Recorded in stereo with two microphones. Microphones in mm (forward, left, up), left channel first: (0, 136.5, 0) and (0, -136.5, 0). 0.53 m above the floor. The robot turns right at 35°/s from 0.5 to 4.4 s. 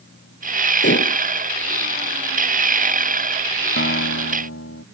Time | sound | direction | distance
0.8 | dishes clattering | 40° left (ahead or behind) | ?
3.8 | a guitar | 45° left (ahead or behind) | ?